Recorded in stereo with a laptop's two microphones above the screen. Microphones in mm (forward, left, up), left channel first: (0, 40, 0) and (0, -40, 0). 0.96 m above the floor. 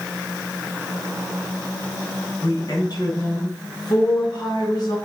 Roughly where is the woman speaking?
Left.